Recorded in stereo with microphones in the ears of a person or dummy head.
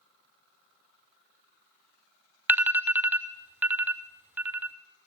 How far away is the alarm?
About 0.6 m.